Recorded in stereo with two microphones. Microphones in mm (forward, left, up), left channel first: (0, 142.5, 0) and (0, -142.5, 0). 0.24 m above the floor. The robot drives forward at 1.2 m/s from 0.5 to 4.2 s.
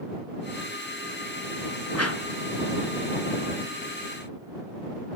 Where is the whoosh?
65° left (ahead or behind), 1.4 m; by 2.2 s 50° left (ahead or behind), 1.5 m.